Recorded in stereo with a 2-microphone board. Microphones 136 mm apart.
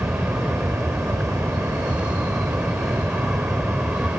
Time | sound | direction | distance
0.0 | an aircraft | 5° right (ahead or behind) | ?